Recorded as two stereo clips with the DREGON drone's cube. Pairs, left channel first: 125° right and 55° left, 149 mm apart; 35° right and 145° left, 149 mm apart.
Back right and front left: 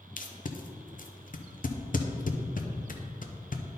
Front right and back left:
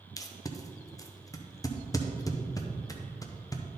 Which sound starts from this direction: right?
Tape being pulled, at 0.2 s.